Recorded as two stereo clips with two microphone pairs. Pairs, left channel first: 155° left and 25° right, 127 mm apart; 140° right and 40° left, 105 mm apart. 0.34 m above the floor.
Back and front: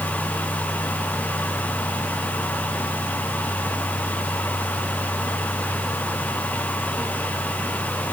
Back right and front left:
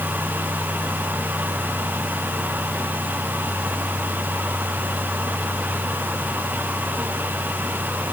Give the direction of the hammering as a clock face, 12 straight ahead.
No hammering in this recording.